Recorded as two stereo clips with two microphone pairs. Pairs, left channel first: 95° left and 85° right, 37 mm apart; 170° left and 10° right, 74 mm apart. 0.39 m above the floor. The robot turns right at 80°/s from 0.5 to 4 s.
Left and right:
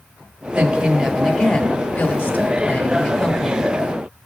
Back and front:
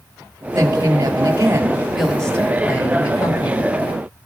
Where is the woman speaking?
40° right, 1.2 m; by 3.8 s 145° right, 1.2 m.